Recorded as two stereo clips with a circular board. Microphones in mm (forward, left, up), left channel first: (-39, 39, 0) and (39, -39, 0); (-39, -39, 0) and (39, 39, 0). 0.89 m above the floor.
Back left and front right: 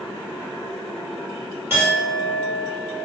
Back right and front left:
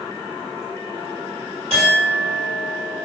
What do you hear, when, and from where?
1.7 s a clink: 20° left, 1.6 m